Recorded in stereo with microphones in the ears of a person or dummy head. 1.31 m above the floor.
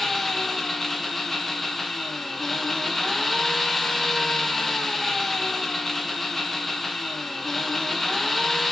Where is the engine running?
5° left (ahead or behind), 0.9 m.